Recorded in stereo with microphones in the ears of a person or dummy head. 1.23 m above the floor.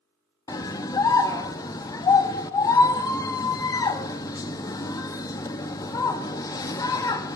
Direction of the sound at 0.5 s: 20° left (ahead or behind).